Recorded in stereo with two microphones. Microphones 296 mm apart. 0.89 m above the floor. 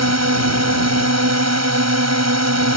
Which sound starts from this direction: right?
A drone, at 0.0 s.